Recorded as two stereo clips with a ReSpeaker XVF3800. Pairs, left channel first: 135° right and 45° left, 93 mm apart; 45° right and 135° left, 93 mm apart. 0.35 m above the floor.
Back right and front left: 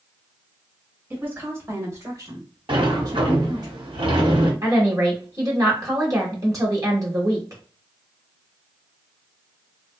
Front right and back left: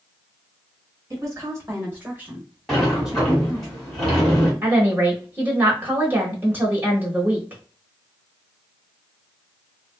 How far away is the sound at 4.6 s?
About 1.2 m.